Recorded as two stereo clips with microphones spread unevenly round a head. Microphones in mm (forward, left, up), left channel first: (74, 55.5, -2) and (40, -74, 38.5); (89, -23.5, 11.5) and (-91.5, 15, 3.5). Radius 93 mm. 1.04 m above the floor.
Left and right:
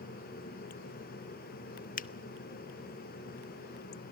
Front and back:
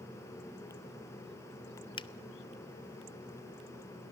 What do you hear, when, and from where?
2.0 s a finger snap: 55° left, 0.7 m